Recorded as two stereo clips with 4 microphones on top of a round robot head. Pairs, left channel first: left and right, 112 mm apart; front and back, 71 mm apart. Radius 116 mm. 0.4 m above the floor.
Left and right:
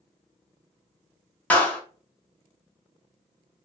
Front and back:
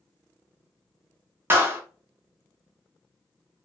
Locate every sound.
1.5 s a clap: 155° left, 0.9 m